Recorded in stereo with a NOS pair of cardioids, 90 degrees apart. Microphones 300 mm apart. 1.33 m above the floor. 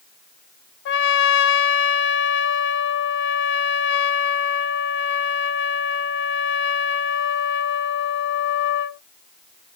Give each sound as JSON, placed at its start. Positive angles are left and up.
{"t": 0.8, "sound": "a trumpet", "azimuth_deg": 45, "distance_m": 0.7}